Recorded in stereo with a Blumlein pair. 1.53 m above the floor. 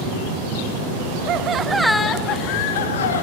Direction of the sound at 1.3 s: 35° right.